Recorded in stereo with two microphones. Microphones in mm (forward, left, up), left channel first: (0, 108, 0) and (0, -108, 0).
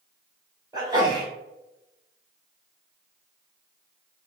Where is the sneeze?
20° right (ahead or behind), 1.0 m.